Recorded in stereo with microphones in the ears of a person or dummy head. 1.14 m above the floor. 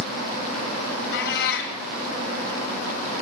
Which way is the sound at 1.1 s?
60° left (ahead or behind).